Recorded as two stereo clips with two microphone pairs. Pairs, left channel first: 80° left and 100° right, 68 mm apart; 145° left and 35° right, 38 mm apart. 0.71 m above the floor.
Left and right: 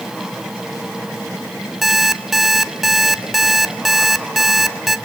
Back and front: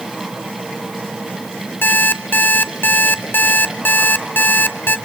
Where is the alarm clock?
170° left, 1.0 m.